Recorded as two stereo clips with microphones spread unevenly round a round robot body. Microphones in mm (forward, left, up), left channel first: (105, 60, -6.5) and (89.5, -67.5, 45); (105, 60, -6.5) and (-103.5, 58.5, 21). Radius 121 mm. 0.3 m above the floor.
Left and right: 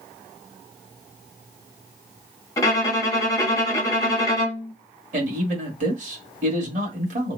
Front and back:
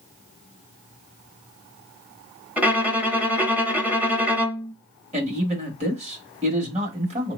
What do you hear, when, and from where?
2.6 s a violin: 95° left, 0.9 m
5.1 s a man speaking: 125° right, 1.2 m